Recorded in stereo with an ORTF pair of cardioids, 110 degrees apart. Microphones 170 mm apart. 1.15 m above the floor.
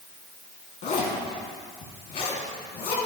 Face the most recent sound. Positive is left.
turn(degrees=65)